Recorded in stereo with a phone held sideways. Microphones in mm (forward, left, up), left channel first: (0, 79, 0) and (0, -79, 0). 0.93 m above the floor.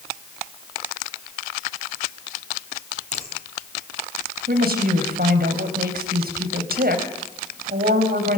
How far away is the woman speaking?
About 4 m.